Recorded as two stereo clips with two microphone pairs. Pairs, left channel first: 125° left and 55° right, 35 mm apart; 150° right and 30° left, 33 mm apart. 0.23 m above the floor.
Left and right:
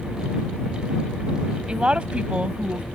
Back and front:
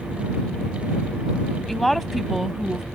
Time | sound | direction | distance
1.7 | a woman speaking | 75° right | ?